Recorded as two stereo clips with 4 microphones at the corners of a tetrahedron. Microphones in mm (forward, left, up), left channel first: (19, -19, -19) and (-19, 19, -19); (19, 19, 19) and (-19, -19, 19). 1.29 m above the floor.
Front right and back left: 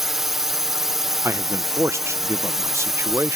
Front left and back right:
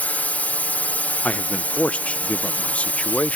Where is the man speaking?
110° left.